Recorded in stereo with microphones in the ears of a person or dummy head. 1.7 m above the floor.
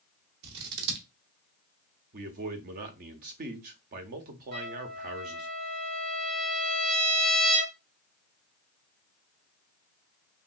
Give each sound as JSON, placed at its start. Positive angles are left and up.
{"t": 0.4, "sound": "scissors", "side_deg": -55, "distance_m": 0.8}
{"t": 2.1, "sound": "a man speaking", "side_deg": -40, "distance_m": 0.6}
{"t": 4.5, "sound": "a trumpet", "side_deg": -55, "distance_m": 2.5}